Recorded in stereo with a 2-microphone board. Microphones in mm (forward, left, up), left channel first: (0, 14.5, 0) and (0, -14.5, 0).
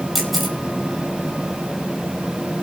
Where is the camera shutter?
Centre (ahead or behind), 5.5 m.